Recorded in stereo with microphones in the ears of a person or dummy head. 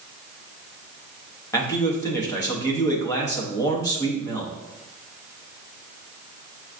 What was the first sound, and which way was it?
A man speaking, 15° left (ahead or behind).